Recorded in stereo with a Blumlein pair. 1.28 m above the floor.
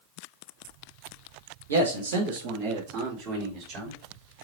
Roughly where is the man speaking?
Right.